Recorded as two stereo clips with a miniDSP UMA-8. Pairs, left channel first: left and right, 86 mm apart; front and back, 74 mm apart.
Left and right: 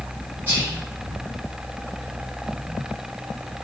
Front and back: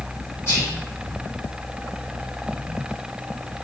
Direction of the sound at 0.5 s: 35° right.